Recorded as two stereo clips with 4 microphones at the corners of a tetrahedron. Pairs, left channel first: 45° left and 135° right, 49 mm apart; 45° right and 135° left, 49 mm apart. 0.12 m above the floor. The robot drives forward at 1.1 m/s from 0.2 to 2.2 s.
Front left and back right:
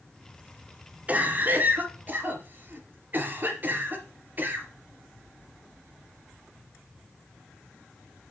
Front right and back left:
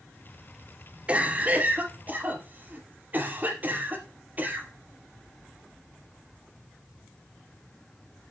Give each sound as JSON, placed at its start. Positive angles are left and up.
{"t": 1.1, "sound": "a cough", "azimuth_deg": -175, "distance_m": 1.9}